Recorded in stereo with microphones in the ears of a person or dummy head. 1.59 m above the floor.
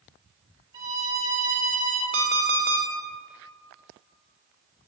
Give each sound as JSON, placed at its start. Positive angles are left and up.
{"t": 0.7, "sound": "a violin", "side_deg": -20, "distance_m": 1.3}
{"t": 2.1, "sound": "an alarm clock", "side_deg": -60, "distance_m": 1.3}